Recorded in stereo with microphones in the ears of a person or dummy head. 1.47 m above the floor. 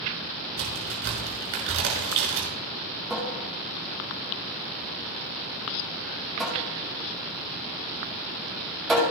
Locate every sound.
0.6 s a crack: 60° right (ahead or behind), 6 m
3.1 s a cupboard door: centre (ahead or behind), 6.5 m